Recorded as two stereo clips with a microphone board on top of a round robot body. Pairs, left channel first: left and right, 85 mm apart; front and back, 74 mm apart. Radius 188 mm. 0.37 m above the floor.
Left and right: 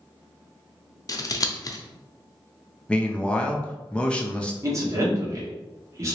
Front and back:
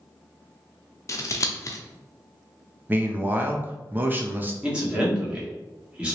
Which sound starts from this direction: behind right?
A man speaking, at 4.6 s.